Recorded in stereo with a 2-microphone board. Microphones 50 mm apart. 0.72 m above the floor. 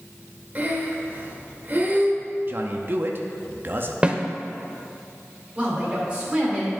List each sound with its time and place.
0.6 s breathing: 35° right (ahead or behind), 1.0 m
2.5 s a man speaking: 40° right (ahead or behind), 0.6 m
4.0 s a snare drum: 20° right (ahead or behind), 0.6 m
5.5 s a woman speaking: 20° right (ahead or behind), 2.5 m